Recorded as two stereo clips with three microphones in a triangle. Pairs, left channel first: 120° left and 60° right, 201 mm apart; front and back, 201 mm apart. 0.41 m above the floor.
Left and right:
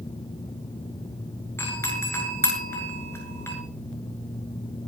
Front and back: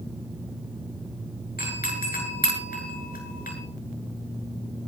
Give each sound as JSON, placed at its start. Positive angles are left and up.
{"t": 1.6, "sound": "a doorbell", "azimuth_deg": 45, "distance_m": 9.0}